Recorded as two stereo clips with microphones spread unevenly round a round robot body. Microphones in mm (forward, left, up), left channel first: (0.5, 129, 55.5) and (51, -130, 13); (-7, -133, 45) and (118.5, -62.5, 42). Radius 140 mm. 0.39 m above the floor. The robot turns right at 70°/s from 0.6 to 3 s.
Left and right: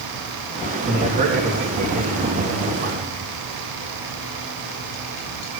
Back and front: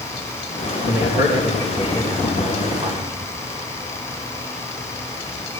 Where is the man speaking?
165° right, 4 m; by 3.3 s 15° right, 4 m.